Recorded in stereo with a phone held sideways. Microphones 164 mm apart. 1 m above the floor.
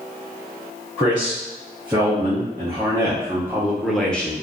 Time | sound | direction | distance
1.0 | a man speaking | 30° right (ahead or behind) | 1.6 m